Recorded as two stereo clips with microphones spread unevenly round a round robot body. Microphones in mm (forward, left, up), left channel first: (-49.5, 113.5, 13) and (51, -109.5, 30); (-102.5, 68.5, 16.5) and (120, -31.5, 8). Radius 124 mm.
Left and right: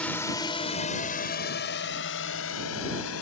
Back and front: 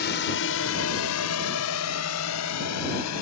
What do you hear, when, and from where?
0.0 s a drone: 165° right; by 3.2 s 140° left